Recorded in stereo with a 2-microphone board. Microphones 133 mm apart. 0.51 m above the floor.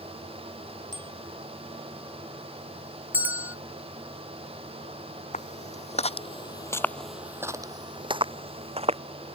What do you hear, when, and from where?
0.9 s a bicycle bell: 85° left
3.1 s a bell: 15° right (ahead or behind)
5.3 s footsteps: 70° left (ahead or behind); by 9.0 s 55° right (ahead or behind)